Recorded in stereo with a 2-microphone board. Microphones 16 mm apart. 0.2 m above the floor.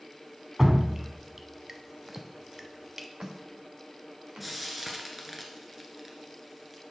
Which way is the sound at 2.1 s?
15° right (ahead or behind).